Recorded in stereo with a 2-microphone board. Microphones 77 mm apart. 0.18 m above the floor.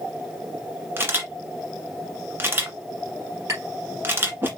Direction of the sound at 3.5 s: 40° right (ahead or behind).